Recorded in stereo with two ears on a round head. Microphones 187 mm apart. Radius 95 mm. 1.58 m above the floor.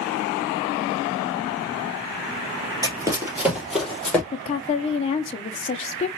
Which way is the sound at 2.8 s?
20° right (ahead or behind).